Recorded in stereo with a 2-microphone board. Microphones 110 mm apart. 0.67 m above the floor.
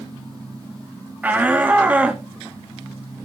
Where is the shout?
15° right (ahead or behind), 1.4 m; by 2.2 s 10° right (ahead or behind), 1.1 m.